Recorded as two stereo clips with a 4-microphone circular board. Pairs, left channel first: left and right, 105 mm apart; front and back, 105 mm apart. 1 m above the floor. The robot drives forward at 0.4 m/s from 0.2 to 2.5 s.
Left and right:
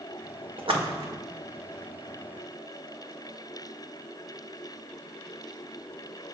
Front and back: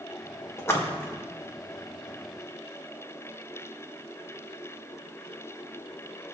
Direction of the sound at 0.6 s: 60° right.